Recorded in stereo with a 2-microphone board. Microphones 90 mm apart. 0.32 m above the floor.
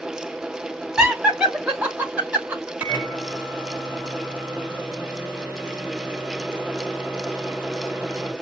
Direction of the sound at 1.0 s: 10° right (ahead or behind).